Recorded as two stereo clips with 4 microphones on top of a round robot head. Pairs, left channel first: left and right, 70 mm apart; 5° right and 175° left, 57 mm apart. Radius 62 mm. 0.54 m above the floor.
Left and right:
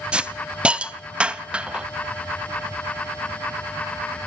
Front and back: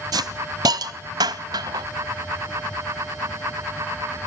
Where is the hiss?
165° right, 1.0 m.